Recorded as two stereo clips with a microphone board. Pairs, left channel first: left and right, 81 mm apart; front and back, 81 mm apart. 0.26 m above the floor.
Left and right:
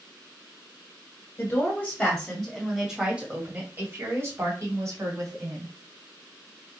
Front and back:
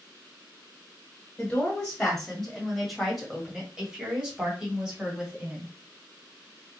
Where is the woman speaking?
60° left, 1.5 m; by 5.7 s 110° right, 2 m.